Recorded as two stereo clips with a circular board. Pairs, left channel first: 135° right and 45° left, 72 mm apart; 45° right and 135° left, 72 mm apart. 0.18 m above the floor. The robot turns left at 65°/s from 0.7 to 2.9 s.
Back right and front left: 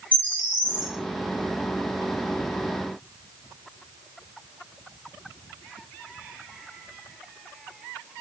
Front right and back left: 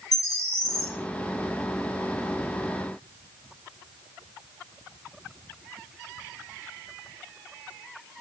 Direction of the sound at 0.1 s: 65° right.